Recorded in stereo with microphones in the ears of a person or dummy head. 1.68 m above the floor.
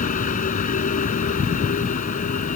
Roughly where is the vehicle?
Left.